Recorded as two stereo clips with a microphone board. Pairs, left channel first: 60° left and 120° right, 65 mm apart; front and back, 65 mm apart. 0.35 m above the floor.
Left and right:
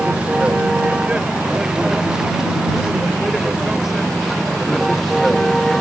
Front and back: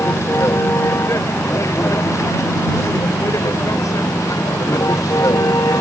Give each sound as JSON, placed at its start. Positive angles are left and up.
{"t": 0.0, "sound": "a vehicle", "azimuth_deg": -45}